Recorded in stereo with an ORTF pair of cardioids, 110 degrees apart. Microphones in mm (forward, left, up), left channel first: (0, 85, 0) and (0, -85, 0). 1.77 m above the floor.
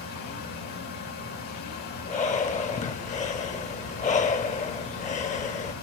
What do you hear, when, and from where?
0.0 s a fan: 70° left, 3.5 m
2.0 s breathing: 50° left, 1.5 m